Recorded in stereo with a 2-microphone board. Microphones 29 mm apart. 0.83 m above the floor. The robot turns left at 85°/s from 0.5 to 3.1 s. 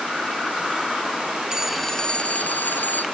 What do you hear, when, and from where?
1.5 s a phone ringing: 160° right; by 3.0 s 70° left